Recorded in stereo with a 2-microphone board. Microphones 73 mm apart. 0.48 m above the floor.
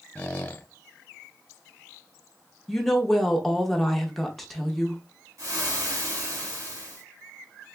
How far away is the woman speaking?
About 0.8 m.